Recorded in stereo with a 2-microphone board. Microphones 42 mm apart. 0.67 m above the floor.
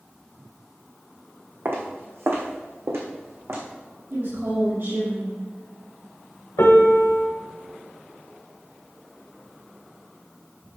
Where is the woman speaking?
70° right (ahead or behind), 4 m.